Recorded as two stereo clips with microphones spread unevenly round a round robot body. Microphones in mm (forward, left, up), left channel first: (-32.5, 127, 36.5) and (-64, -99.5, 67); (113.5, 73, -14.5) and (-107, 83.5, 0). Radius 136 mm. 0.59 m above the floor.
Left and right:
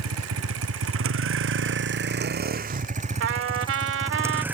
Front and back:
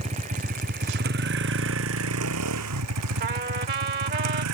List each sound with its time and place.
0.0 s a vehicle: 115° right; by 4.5 s straight behind
3.2 s a trumpet: 125° right